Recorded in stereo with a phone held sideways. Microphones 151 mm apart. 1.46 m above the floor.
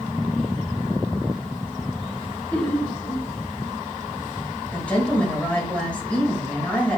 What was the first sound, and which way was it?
Laughter, 5° left (ahead or behind).